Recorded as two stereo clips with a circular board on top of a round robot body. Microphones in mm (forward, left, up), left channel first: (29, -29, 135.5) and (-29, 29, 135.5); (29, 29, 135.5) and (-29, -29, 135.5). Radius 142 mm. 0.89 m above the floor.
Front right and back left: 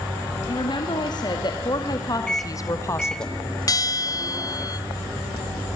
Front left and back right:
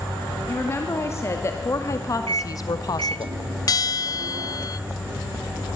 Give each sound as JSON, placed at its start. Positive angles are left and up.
{"t": 0.5, "sound": "a woman speaking", "azimuth_deg": -15, "distance_m": 3.0}
{"t": 2.3, "sound": "a microwave", "azimuth_deg": -125, "distance_m": 1.4}
{"t": 3.7, "sound": "a bell", "azimuth_deg": 0, "distance_m": 0.9}